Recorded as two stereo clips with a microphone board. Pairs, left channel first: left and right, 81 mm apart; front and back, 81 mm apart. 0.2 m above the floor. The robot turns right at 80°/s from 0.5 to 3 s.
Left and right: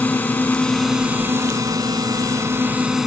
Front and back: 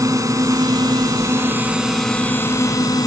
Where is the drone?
155° left; by 3.1 s 5° right.